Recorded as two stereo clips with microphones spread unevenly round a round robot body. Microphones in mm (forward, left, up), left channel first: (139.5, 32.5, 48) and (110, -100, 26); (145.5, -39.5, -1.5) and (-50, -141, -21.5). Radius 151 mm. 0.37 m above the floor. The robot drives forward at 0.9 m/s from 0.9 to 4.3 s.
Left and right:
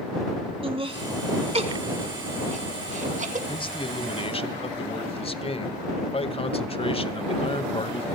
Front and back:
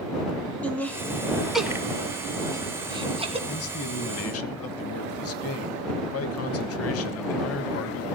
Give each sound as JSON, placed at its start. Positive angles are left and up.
{"t": 0.6, "sound": "laughter", "azimuth_deg": -60, "distance_m": 4.0}
{"t": 3.5, "sound": "a man speaking", "azimuth_deg": 20, "distance_m": 3.0}